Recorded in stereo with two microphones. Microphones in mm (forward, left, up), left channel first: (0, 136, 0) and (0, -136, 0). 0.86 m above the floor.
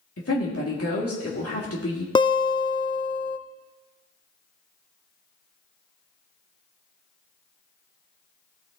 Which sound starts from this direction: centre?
A guitar, at 2.1 s.